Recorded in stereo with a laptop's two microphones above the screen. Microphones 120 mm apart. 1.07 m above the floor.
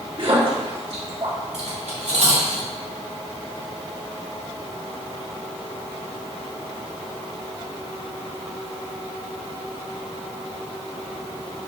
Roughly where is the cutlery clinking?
Right.